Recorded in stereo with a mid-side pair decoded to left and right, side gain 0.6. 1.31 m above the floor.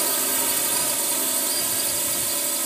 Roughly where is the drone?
Ahead.